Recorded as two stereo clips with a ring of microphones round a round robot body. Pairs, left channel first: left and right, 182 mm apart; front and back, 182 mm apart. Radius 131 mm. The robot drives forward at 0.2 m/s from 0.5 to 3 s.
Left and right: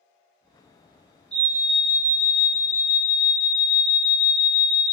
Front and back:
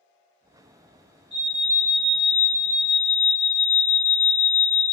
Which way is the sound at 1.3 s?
145° right.